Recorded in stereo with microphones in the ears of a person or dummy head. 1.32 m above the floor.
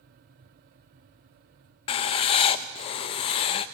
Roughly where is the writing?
Left.